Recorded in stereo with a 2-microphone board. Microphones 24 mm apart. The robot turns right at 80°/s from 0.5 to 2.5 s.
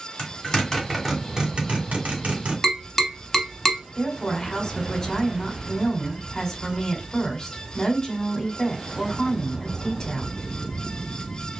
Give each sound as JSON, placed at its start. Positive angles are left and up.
{"t": 0.2, "sound": "a zipper", "side_deg": 35, "distance_m": 2.5}
{"t": 2.6, "sound": "tapping", "side_deg": 5, "distance_m": 1.0}
{"t": 4.0, "sound": "a woman speaking", "side_deg": 25, "distance_m": 1.5}